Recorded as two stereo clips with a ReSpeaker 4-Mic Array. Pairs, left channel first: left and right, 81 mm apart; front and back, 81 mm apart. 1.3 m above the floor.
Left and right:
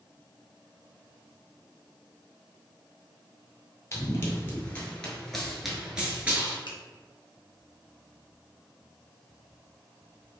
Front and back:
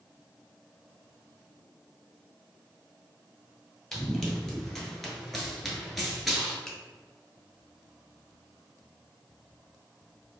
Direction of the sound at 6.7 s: 80° left.